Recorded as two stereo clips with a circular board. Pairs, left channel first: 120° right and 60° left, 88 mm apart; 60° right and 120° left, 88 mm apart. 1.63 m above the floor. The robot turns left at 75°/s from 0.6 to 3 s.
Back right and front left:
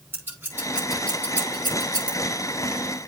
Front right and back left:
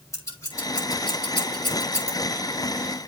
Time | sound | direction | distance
0.1 | scissors | 5° right | 6 m